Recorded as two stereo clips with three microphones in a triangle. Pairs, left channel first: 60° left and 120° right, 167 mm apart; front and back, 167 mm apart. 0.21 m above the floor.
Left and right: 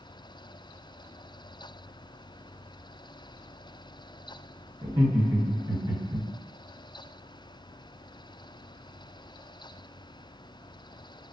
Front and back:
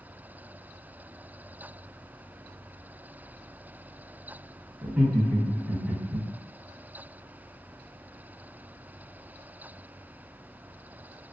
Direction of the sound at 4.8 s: 110° right.